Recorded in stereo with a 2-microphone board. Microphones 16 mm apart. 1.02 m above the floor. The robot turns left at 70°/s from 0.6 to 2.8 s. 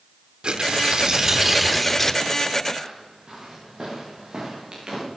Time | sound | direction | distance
0.4 | tearing paper | 100° right | 1.0 m
2.8 | footsteps | 40° right (ahead or behind) | 7 m